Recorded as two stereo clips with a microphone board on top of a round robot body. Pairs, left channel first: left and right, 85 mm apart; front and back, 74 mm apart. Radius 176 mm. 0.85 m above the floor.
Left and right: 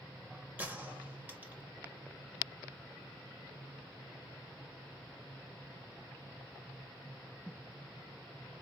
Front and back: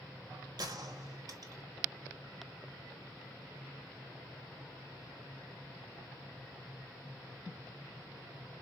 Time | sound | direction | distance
0.6 | a gunshot | 160° right | 1.4 m